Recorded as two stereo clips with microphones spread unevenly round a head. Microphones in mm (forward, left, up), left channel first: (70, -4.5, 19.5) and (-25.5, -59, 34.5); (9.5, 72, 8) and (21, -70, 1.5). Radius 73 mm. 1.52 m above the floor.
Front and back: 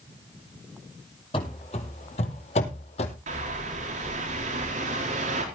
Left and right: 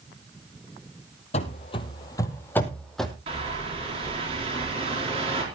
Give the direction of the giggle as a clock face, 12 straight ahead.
I don't hear a giggle.